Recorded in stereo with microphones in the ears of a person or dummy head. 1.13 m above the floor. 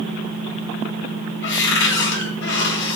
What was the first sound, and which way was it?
A cupboard door, 65° left (ahead or behind).